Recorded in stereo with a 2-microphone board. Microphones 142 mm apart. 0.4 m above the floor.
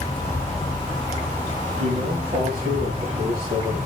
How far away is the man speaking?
About 8.5 m.